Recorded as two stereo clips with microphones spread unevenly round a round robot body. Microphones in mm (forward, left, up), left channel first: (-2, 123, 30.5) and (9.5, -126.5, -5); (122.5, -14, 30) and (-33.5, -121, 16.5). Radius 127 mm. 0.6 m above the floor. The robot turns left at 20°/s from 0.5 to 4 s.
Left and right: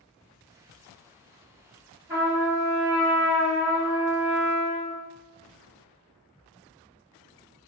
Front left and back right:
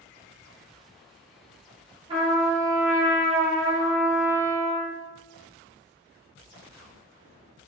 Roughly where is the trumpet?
Behind right.